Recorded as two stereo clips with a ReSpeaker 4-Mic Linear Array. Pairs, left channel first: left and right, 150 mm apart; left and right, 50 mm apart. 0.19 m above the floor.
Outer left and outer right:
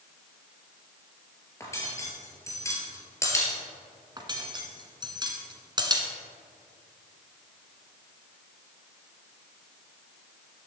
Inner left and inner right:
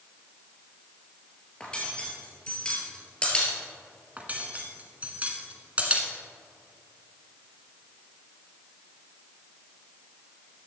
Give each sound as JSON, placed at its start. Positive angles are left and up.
{"t": 1.6, "sound": "cutlery clinking", "side_deg": 20, "distance_m": 2.5}
{"t": 4.2, "sound": "cutlery clinking", "side_deg": -30, "distance_m": 1.4}